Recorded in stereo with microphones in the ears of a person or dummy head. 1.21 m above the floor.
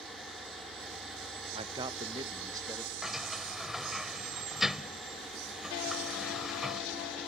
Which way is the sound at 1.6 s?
40° right (ahead or behind).